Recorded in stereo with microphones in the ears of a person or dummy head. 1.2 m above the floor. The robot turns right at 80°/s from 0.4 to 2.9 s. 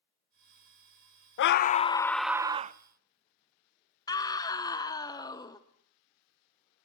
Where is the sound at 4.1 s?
15° left (ahead or behind), 1.0 m.